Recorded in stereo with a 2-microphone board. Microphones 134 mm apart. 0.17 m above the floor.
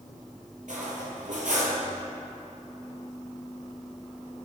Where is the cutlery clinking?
75° right (ahead or behind), 2 m.